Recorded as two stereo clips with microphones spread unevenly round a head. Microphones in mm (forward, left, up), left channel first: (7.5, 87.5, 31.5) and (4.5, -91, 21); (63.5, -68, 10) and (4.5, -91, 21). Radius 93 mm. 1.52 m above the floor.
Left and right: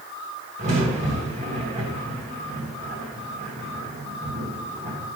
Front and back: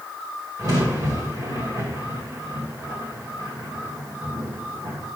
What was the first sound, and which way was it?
A crack, 145° right.